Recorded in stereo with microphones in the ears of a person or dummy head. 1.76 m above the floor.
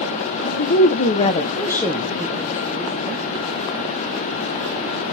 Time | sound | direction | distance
0.4 | a woman speaking | 55° left (ahead or behind) | 1.4 m